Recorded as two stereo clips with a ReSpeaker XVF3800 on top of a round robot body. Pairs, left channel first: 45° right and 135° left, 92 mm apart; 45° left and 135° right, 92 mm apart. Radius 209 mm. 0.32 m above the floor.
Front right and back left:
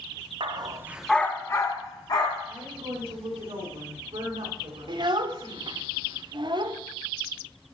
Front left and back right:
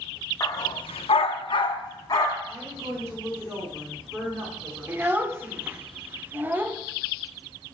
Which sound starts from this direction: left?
A dog barking, at 0.4 s.